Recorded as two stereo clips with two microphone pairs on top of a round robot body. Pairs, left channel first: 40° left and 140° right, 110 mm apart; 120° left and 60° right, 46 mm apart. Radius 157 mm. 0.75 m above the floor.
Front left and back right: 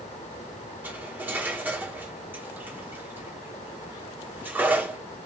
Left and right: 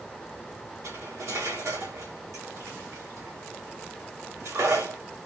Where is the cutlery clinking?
65° right, 1.8 m.